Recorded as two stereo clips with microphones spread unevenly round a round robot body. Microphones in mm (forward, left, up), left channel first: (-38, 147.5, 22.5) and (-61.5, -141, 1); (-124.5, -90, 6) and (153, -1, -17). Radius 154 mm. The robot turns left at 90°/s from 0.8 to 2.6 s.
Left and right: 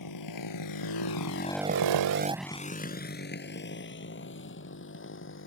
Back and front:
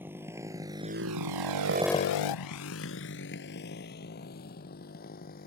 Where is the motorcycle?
100° left; by 5.5 s 135° left.